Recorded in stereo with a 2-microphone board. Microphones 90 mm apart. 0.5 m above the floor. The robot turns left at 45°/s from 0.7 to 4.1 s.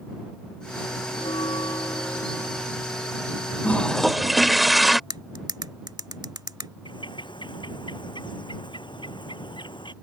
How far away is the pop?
No pop in this recording.